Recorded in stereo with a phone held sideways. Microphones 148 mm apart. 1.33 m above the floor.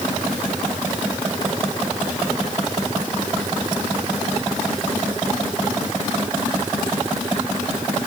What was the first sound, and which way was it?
Only background noise.